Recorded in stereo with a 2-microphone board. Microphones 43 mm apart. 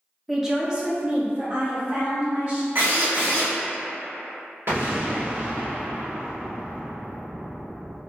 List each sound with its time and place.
0.3 s a woman speaking: 5° right (ahead or behind), 0.6 m; by 2.6 s 45° right (ahead or behind), 1.1 m
2.8 s a drill: 70° right (ahead or behind), 1.2 m
4.7 s an explosion: 55° right (ahead or behind), 1.0 m